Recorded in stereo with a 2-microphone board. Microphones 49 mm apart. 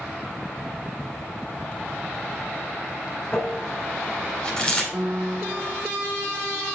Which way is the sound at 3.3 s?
20° left (ahead or behind).